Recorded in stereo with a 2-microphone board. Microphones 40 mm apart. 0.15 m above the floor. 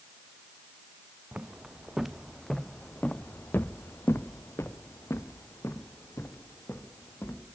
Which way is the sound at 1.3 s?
20° right (ahead or behind).